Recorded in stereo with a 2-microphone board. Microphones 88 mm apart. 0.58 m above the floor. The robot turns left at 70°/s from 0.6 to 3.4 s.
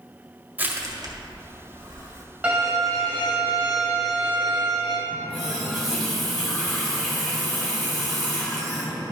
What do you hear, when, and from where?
0.6 s crushing: 20° right (ahead or behind), 1.6 m; by 2.2 s 45° right (ahead or behind), 1.6 m
2.4 s a violin: 15° right, 2.5 m; by 5.0 s 80° right, 2.5 m
5.1 s a running tap: centre (ahead or behind), 2.5 m